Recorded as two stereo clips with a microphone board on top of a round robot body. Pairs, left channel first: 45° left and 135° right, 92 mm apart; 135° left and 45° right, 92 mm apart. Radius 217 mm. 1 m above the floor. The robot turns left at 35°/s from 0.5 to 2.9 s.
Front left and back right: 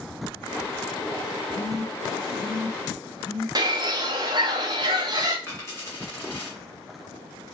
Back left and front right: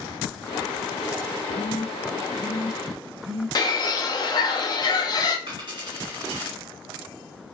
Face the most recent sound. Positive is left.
turn(degrees=-15)